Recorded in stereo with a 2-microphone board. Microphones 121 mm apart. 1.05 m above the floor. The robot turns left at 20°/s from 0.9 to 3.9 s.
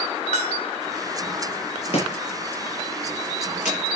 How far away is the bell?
About 2.5 m.